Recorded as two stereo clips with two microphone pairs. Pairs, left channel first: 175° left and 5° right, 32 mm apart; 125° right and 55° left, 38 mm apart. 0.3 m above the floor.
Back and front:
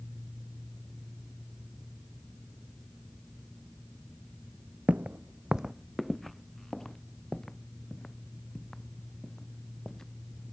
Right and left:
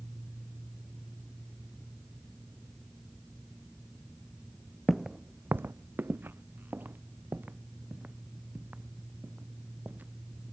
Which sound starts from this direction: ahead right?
Footsteps, at 4.9 s.